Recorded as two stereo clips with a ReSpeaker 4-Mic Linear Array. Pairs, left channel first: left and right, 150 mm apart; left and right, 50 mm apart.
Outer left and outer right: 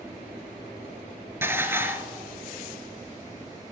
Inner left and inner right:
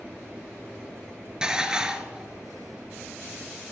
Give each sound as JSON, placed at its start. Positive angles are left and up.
{"t": 1.4, "sound": "dishes clattering", "side_deg": -15, "distance_m": 1.2}